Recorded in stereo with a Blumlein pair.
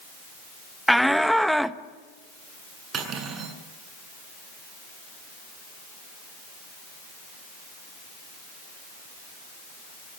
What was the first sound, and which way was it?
A shout, straight ahead.